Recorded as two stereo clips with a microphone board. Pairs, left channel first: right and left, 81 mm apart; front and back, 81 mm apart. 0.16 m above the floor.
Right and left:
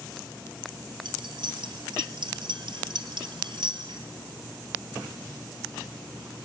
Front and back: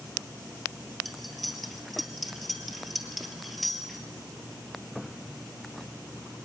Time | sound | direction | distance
1.1 | cutlery clinking | 90° left | 2 m